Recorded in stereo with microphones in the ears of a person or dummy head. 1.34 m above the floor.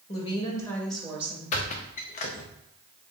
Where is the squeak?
40° left (ahead or behind), 0.5 m.